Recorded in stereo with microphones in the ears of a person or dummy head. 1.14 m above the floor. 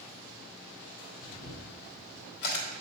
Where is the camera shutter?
50° left (ahead or behind), 1.5 m.